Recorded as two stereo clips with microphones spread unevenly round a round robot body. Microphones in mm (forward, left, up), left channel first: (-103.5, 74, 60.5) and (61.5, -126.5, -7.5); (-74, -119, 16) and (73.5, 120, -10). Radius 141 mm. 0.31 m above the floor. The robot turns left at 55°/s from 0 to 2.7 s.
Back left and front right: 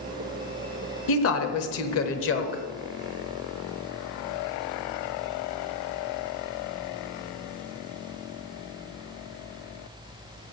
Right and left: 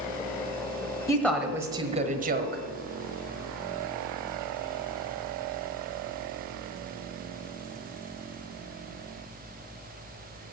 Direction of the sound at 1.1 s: 160° left.